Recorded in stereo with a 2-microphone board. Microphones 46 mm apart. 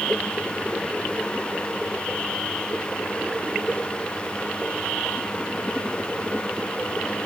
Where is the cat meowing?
No cat meowing in this recording.